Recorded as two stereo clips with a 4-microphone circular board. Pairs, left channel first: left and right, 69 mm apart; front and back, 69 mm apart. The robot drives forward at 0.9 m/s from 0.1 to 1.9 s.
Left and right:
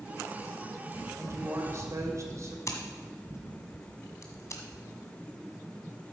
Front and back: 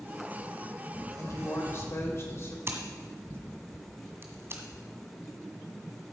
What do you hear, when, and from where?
1.2 s a woman speaking: 40° right, 3 m; by 2.6 s 50° right, 2.5 m
2.7 s scissors: 130° left, 1.6 m